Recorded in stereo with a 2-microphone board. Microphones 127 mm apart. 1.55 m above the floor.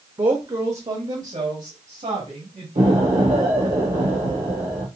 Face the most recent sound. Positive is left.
turn(degrees=-75)  # may be behind; listen again after turning